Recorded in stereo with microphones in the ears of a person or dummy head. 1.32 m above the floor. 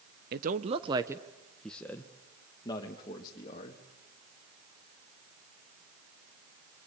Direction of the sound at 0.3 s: 45° right (ahead or behind).